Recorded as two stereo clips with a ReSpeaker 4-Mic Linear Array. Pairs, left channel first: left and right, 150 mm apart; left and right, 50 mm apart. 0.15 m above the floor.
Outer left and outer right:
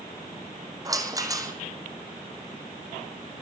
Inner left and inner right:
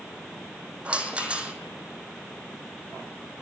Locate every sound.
0.8 s a rattle: 25° right (ahead or behind), 2.5 m